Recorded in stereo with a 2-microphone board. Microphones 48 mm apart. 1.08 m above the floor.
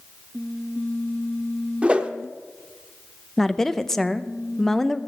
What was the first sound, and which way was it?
A whoosh, 20° right (ahead or behind).